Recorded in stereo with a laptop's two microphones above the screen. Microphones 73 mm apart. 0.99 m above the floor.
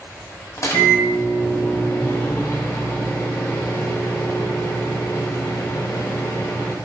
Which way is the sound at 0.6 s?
45° left (ahead or behind).